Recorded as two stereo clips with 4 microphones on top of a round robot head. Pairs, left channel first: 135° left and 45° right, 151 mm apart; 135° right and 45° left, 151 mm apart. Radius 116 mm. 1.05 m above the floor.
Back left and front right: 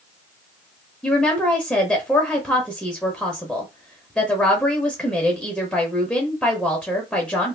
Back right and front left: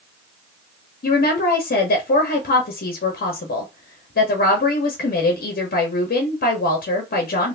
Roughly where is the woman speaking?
Behind right.